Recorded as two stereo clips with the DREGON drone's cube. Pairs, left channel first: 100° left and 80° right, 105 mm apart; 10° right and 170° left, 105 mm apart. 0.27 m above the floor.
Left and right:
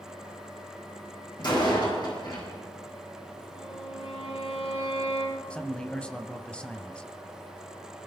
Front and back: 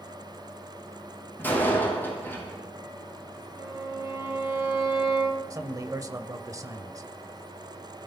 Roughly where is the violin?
Left.